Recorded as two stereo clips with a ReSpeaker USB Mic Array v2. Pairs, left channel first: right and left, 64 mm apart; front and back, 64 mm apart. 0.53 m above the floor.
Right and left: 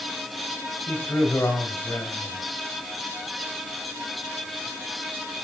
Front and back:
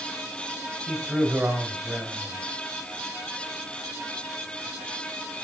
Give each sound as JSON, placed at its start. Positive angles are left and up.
{"t": 0.9, "sound": "a man speaking", "azimuth_deg": -135, "distance_m": 3.0}